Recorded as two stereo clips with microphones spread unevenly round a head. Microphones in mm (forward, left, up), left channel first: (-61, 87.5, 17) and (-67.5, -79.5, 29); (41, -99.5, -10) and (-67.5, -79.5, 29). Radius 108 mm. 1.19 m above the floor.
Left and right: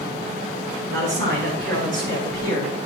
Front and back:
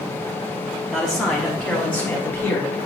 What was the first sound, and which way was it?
A man speaking, 95° right.